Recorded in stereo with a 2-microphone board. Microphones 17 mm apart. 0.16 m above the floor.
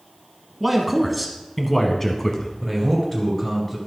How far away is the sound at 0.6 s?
About 1.2 m.